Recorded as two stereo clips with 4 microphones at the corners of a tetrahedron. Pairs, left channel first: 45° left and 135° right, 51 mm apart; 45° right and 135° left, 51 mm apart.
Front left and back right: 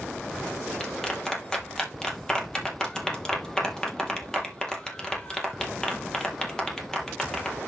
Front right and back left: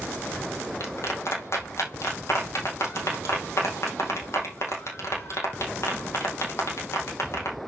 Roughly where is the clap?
Ahead right.